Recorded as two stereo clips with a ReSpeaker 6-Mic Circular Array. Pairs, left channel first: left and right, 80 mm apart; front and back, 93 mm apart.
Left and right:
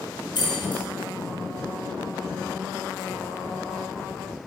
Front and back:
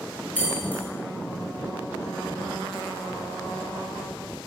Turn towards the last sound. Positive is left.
turn(degrees=70)